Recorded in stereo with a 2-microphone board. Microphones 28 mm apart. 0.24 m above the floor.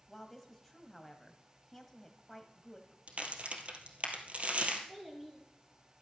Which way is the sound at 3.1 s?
50° right (ahead or behind).